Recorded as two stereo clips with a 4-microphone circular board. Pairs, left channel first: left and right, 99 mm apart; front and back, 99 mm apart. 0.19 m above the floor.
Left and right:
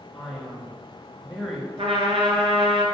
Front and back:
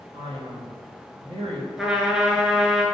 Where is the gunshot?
No gunshot in this recording.